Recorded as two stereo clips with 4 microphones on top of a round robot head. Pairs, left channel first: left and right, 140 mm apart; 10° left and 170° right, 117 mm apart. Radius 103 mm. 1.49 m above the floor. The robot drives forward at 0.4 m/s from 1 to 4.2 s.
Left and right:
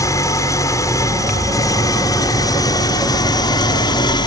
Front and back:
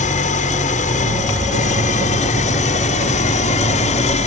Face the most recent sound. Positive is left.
turn(degrees=30)